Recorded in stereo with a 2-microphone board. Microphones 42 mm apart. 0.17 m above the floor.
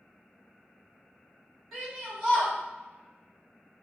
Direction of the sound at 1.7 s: 5° left (ahead or behind).